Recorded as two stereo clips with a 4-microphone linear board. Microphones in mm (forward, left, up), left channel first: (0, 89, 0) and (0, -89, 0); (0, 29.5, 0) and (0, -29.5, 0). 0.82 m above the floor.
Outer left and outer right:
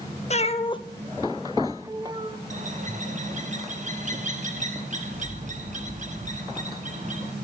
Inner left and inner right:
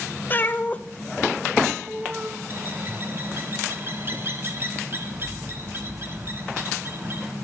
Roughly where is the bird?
Right.